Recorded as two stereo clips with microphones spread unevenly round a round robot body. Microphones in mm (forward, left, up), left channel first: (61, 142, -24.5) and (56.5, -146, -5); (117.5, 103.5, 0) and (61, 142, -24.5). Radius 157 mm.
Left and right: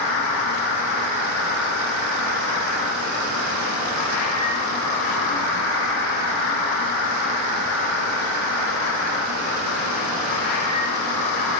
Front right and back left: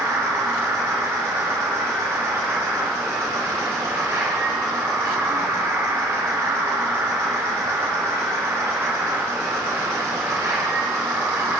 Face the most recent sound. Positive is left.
turn(degrees=95)